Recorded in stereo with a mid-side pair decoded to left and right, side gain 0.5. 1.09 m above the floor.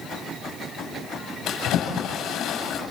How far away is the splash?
About 8.5 m.